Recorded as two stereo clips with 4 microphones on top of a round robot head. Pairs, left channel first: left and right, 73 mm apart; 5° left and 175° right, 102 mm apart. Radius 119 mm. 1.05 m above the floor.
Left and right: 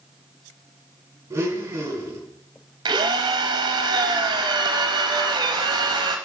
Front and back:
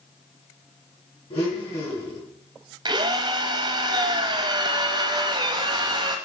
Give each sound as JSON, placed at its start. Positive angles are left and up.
{"t": 1.3, "sound": "a blender", "azimuth_deg": -40, "distance_m": 3.5}
{"t": 2.9, "sound": "a drill", "azimuth_deg": -120, "distance_m": 0.6}